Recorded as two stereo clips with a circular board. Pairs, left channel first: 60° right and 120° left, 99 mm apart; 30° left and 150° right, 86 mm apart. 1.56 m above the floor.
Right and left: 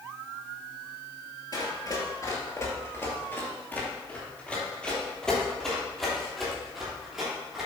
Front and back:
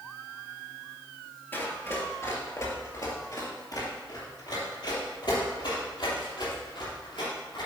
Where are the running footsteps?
30° right, 2 m; by 7.7 s 35° left, 4 m.